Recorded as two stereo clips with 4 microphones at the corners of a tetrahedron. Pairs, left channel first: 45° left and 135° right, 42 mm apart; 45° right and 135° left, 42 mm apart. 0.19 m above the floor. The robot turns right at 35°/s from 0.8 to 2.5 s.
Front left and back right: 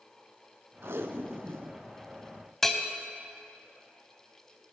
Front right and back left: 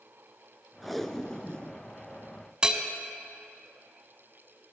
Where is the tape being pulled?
135° right, 0.5 m; by 1.8 s 100° right, 0.5 m.